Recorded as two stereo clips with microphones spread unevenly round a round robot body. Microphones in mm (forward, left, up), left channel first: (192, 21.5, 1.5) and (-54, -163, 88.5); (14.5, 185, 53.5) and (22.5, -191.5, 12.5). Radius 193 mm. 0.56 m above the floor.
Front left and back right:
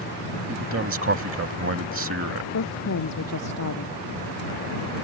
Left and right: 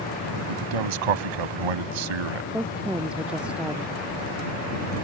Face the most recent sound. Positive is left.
turn(degrees=0)